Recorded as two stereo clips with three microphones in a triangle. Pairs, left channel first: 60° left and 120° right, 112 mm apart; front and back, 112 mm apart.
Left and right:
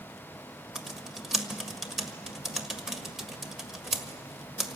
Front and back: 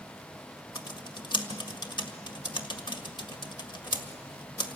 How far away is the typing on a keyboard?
About 1.6 m.